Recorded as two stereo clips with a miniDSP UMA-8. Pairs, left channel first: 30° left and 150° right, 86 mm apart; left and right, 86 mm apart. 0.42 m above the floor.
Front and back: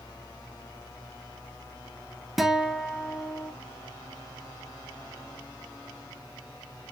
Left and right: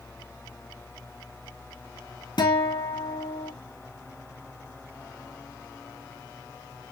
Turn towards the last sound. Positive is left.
turn(degrees=120)